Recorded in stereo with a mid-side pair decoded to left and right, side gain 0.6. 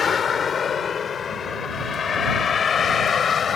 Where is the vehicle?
35° left; by 3.6 s 40° left.